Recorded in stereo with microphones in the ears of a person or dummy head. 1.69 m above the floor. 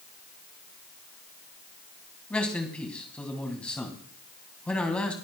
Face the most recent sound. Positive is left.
turn(degrees=10)  # may be behind; listen again after turning